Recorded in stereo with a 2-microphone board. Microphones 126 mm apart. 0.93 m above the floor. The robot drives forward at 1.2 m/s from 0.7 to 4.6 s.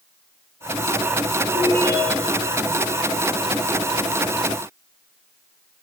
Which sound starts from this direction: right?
A ringtone, at 1.5 s.